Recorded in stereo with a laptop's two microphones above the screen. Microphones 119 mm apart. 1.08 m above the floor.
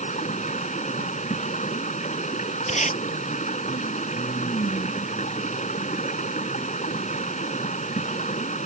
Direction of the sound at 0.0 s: 80° left.